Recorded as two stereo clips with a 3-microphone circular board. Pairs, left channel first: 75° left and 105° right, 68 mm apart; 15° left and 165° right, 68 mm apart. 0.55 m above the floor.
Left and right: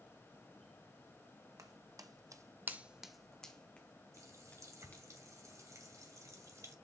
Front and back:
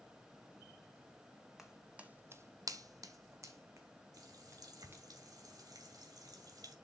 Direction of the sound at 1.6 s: 80° right.